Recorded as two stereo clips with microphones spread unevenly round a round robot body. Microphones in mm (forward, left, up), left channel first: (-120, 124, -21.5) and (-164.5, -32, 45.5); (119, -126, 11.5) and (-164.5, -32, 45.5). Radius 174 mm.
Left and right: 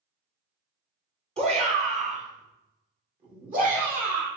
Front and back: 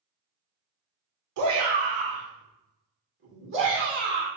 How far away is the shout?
About 1.3 m.